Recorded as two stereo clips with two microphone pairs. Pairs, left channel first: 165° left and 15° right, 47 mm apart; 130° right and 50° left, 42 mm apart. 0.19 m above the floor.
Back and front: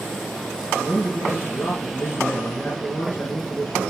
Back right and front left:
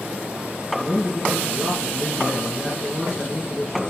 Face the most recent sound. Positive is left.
turn(degrees=155)